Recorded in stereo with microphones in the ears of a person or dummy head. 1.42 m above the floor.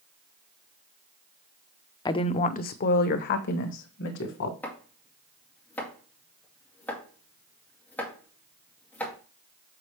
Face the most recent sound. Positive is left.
turn(degrees=10)  # may be behind; listen again after turning